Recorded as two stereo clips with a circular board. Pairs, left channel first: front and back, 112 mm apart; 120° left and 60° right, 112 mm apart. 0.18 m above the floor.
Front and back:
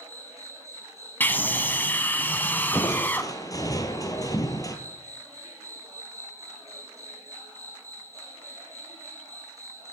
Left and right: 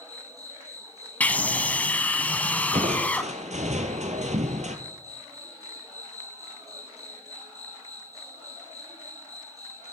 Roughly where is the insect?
Behind right.